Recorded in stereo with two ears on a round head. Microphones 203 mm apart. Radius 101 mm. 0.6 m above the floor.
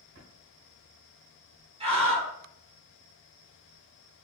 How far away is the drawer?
About 1.2 m.